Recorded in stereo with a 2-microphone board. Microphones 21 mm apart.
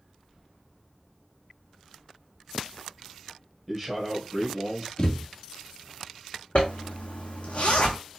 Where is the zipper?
60° left (ahead or behind), 1.2 m.